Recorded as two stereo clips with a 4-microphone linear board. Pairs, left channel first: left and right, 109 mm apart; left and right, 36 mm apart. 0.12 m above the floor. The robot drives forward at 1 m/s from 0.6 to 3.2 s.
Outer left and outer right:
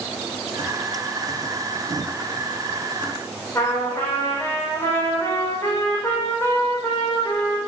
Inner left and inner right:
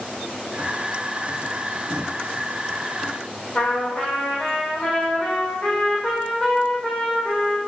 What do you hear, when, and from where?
3.5 s a trumpet: 25° left (ahead or behind), 7 m